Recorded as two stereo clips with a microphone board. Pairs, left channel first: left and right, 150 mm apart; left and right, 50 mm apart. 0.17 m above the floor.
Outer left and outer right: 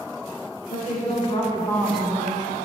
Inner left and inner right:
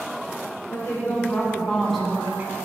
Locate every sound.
0.7 s a woman speaking: 55° left (ahead or behind), 2 m; by 2.5 s 35° right (ahead or behind), 1.5 m